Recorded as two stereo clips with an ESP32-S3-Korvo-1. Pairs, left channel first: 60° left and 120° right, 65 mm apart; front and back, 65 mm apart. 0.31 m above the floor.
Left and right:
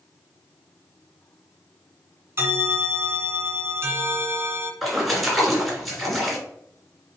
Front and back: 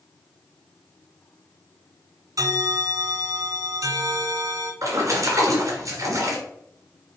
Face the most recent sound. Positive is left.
turn(degrees=150)